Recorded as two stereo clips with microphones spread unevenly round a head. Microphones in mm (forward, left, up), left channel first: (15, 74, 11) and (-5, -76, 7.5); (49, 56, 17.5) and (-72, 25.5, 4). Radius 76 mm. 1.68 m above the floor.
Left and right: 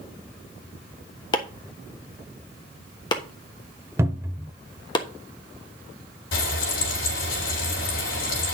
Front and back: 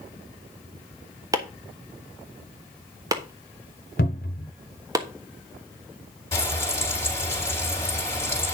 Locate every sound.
1.3 s chopping: 135° left, 1.2 m
4.0 s a cupboard door: 25° right, 1.0 m
6.3 s frying: 85° left, 4 m